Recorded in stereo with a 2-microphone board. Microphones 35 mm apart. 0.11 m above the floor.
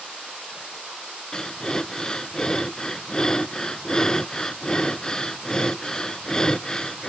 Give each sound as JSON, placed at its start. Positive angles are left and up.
{"t": 1.3, "sound": "breathing", "side_deg": 20, "distance_m": 0.5}